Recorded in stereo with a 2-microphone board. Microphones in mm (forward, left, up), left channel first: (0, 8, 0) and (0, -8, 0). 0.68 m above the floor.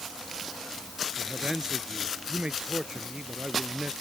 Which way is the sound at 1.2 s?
65° right (ahead or behind).